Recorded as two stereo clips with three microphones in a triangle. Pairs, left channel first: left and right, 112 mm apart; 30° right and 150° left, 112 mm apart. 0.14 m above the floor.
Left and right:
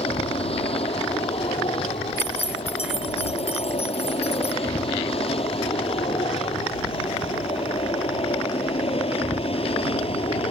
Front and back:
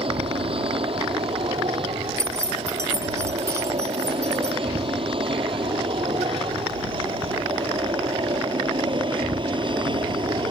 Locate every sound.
0.0 s an aircraft: 115° left; by 10.5 s 110° left
2.2 s keys jangling: 85° left